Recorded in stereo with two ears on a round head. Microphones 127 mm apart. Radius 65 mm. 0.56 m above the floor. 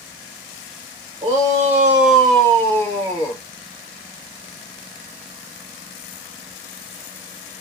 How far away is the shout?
About 1.3 m.